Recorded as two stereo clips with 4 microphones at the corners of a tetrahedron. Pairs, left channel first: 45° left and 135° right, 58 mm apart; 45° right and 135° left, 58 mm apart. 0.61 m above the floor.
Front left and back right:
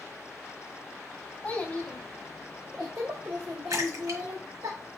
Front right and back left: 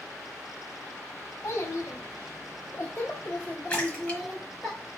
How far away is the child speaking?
About 1.0 m.